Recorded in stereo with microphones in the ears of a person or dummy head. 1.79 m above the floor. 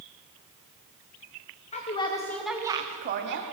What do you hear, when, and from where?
1.7 s a woman speaking: 30° left (ahead or behind), 1.3 m; by 3.4 s 60° right (ahead or behind), 1.1 m